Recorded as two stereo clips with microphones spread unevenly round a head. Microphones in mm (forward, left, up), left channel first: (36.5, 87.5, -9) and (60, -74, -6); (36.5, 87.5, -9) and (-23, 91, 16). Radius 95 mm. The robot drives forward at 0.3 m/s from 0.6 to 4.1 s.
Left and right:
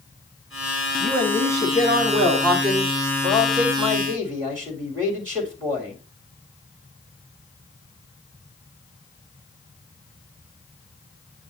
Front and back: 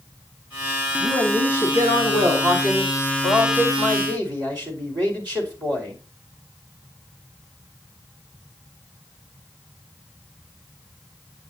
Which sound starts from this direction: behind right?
A man speaking, at 1.0 s.